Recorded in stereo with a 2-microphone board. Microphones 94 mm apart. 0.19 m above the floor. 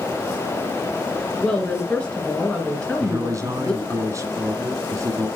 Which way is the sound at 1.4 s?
10° left (ahead or behind).